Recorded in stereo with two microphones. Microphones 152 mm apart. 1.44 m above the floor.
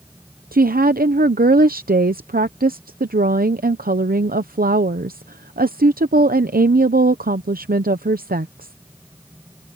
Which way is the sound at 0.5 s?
75° right (ahead or behind).